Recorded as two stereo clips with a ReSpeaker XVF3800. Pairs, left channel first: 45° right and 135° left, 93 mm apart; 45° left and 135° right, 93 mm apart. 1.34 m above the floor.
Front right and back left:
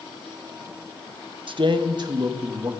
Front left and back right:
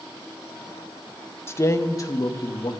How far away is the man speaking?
About 1.3 m.